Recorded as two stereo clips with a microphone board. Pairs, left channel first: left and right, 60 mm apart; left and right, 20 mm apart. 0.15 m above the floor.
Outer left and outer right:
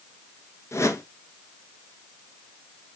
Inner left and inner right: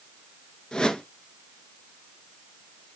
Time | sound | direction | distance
0.7 | a whoosh | 55° left (ahead or behind) | 1.4 m